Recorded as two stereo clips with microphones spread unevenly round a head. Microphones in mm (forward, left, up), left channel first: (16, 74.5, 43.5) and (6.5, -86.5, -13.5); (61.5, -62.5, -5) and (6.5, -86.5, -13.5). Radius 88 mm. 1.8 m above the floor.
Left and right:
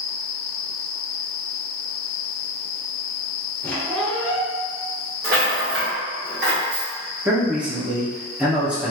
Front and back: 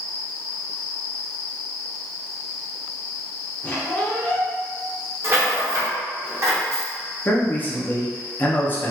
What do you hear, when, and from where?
3.6 s a squeak: 45° left, 1.0 m
5.2 s a rattle: 125° right, 1.7 m
7.2 s a man speaking: 10° left, 0.8 m